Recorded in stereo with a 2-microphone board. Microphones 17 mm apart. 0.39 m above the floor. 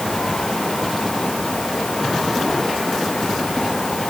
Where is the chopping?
I don't hear chopping.